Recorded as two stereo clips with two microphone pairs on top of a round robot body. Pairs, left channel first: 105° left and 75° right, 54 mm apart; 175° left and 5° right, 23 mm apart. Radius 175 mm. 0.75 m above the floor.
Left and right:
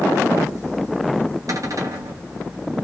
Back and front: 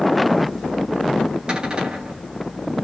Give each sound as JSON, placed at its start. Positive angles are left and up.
{"t": 1.5, "sound": "a cupboard door", "azimuth_deg": -55, "distance_m": 3.0}